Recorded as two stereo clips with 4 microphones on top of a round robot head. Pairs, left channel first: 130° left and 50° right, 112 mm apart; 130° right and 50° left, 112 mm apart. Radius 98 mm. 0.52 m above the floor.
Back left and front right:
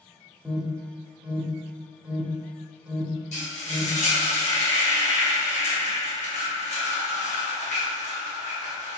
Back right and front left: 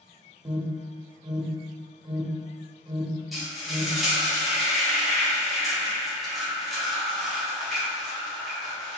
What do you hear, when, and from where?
0.5 s an alarm: 25° left, 1.0 m
3.3 s frying: 140° left, 1.7 m